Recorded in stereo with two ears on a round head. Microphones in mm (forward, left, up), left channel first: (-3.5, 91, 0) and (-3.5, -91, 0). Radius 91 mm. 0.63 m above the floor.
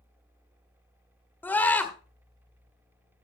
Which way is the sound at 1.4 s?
10° left (ahead or behind).